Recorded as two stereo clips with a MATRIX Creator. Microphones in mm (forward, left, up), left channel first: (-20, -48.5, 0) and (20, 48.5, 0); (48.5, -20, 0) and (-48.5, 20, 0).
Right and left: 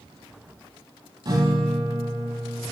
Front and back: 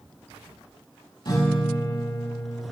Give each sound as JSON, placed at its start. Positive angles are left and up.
{"t": 1.2, "sound": "a guitar", "azimuth_deg": 25, "distance_m": 5.0}